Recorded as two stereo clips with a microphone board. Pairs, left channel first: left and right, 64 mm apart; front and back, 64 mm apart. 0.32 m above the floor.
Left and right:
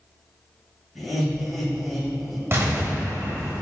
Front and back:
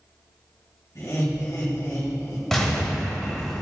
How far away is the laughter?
About 2 m.